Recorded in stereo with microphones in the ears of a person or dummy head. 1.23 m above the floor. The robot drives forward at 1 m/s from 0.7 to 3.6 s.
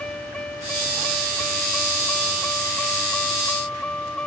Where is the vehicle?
10° left (ahead or behind); by 4.3 s 5° left (ahead or behind).